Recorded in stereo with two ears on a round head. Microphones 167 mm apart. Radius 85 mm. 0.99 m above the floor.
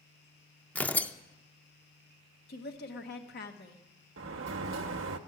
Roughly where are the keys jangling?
No keys jangling in this recording.